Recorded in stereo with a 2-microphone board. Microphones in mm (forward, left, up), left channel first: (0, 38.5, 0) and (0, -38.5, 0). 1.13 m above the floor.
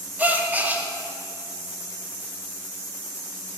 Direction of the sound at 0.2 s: 20° right (ahead or behind).